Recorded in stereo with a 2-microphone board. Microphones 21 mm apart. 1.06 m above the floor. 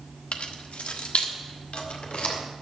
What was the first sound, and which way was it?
Keys jangling, 70° left (ahead or behind).